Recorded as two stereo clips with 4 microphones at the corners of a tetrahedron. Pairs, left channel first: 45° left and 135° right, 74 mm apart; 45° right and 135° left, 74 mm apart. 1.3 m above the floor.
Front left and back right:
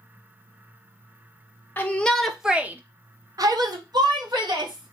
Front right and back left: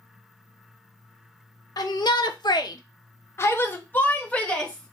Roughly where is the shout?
Ahead.